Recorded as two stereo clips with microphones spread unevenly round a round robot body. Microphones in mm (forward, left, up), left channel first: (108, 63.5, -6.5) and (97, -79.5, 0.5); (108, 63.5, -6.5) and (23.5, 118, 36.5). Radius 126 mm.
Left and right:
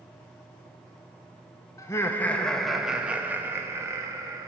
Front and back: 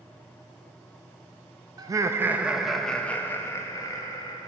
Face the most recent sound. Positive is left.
turn(degrees=-30)